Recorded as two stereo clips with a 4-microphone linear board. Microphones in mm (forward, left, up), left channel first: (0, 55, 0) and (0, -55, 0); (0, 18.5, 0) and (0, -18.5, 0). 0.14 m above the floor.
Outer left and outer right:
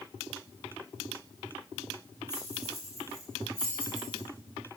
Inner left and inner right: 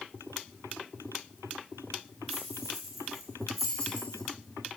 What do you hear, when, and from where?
2.3 s keys jangling: 5° right (ahead or behind), 3 m; by 4.2 s 15° left (ahead or behind), 3 m